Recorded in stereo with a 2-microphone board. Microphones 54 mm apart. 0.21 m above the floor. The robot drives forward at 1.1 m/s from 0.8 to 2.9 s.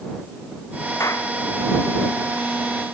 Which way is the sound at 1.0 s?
70° left (ahead or behind).